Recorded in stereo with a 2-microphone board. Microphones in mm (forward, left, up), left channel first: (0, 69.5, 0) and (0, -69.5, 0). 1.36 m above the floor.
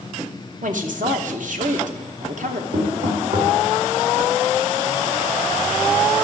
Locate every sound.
0.6 s a woman speaking: 70° right (ahead or behind), 1.0 m
2.7 s knocking: 70° right (ahead or behind), 2.5 m